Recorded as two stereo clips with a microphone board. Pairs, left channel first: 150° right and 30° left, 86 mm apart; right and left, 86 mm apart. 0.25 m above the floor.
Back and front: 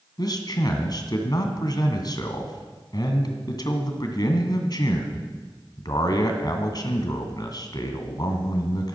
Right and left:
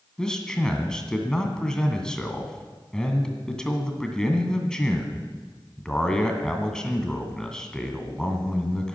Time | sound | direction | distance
0.2 | a man speaking | 170° right | 2 m